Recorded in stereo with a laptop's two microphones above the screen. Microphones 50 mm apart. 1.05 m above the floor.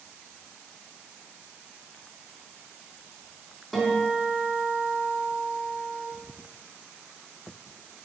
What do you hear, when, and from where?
3.7 s a guitar: centre (ahead or behind), 4 m